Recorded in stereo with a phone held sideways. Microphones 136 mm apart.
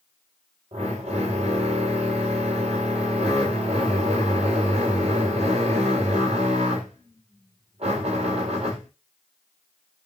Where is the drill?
50° right (ahead or behind), 3.5 m.